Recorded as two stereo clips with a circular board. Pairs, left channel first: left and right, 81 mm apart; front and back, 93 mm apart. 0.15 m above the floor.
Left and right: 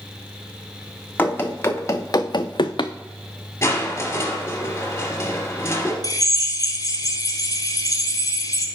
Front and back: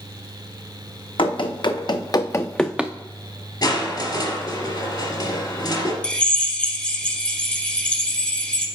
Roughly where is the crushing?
Ahead left.